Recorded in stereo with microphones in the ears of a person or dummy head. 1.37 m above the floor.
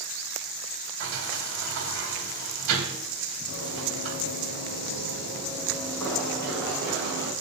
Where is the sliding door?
55° right (ahead or behind), 1.6 m.